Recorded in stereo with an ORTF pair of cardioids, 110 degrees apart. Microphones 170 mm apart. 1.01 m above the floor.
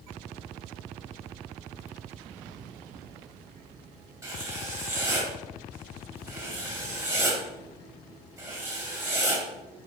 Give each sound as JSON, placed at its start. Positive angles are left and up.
{"t": 4.2, "sound": "writing", "azimuth_deg": -20, "distance_m": 2.5}